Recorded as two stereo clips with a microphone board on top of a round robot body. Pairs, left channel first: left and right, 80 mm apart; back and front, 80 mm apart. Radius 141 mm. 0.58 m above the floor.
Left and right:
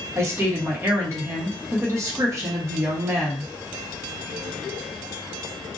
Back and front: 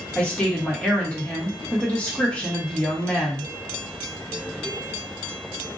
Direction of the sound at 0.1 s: 115° right.